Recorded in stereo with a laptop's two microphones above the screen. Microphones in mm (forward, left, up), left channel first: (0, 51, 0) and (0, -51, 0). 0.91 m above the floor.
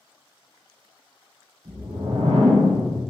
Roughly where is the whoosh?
Right.